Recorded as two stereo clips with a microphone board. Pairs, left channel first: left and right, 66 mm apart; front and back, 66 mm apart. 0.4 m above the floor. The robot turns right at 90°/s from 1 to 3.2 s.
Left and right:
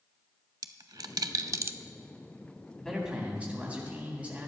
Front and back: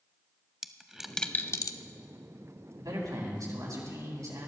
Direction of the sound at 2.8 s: 165° left.